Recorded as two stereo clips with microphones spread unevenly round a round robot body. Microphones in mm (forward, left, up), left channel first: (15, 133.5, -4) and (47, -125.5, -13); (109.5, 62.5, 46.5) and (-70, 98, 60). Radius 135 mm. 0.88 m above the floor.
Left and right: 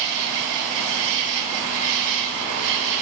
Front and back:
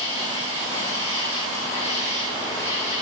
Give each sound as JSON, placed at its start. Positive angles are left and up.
{"t": 0.0, "sound": "an insect", "azimuth_deg": -85, "distance_m": 5.5}